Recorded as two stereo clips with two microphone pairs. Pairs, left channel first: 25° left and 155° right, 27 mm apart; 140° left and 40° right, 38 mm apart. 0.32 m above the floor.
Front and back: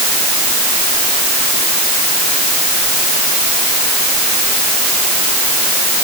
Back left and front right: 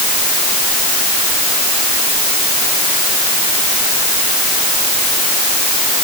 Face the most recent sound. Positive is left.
No sound to turn to.